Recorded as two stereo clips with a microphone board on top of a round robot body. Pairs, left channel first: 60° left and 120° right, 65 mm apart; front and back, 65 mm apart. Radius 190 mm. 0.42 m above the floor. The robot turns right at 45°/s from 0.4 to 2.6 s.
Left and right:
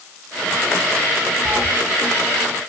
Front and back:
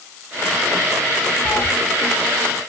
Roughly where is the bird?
No bird in this recording.